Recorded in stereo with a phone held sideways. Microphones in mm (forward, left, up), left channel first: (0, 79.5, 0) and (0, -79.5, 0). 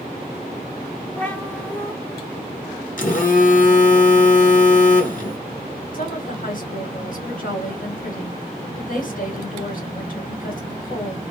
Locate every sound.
1.2 s a cat meowing: 10° left (ahead or behind), 0.8 m
3.0 s a phone buzzing: 55° left (ahead or behind), 0.8 m
5.9 s a woman speaking: 60° left (ahead or behind), 1.6 m